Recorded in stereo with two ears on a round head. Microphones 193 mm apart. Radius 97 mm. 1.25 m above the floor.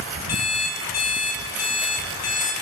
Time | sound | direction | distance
0.3 | an alarm clock | 70° left (ahead or behind) | 3.5 m